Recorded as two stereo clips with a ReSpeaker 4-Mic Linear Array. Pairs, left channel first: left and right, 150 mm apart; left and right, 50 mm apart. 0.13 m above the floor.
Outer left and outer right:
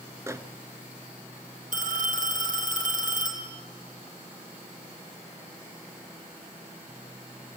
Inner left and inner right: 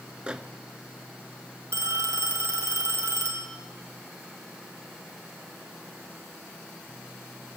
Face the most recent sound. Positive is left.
turn(degrees=-65)  # may be behind; listen again after turning